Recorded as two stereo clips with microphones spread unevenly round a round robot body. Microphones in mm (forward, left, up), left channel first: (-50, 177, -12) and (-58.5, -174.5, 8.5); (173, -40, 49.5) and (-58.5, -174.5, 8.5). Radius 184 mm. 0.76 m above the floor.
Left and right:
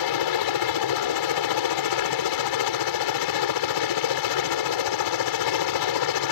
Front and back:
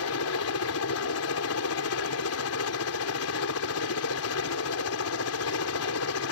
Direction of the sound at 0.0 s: 70° left.